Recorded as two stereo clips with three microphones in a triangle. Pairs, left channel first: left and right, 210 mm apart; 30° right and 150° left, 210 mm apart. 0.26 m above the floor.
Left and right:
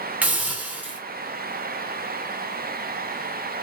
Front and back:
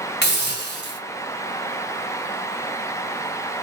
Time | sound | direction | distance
0.2 | a hiss | 5° right | 1.2 m